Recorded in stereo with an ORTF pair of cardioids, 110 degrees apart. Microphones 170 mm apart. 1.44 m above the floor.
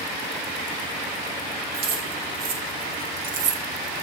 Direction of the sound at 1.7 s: 70° right.